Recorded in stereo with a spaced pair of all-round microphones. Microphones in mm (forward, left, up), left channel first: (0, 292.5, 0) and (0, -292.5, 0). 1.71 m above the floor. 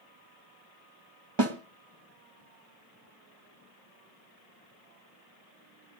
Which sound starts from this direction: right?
A snare drum, at 1.4 s.